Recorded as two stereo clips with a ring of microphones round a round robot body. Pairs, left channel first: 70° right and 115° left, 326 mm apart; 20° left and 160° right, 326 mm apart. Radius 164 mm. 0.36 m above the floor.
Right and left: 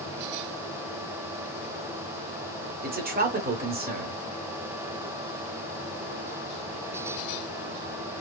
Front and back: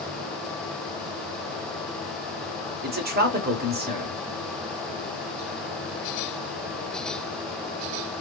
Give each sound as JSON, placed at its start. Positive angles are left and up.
{"t": 2.8, "sound": "a man speaking", "azimuth_deg": 160, "distance_m": 1.1}